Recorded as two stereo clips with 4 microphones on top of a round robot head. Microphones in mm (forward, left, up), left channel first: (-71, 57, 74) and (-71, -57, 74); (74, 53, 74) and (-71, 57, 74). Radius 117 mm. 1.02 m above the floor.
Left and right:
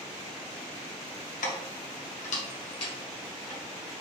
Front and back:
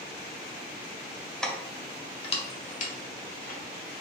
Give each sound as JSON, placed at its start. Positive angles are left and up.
{"t": 1.4, "sound": "keys jangling", "azimuth_deg": 85, "distance_m": 0.9}